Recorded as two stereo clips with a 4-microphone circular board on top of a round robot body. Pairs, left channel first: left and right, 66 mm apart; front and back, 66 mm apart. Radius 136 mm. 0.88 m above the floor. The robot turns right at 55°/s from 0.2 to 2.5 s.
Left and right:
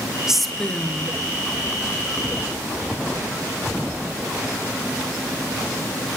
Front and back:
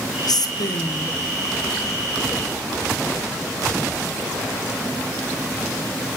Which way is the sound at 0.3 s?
10° right.